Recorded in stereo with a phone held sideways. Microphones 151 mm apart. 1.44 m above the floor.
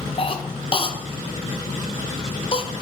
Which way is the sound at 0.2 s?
35° left (ahead or behind).